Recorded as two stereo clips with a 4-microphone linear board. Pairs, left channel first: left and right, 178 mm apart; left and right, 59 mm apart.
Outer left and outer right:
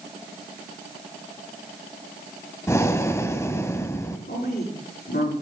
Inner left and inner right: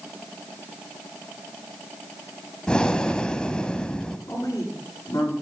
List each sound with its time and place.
2.7 s breathing: 15° left (ahead or behind), 0.8 m
4.3 s a woman speaking: 65° left (ahead or behind), 7.5 m